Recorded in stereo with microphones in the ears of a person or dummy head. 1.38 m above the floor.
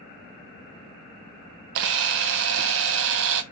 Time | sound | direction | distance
1.8 | a camera shutter | 65° right (ahead or behind) | 0.5 m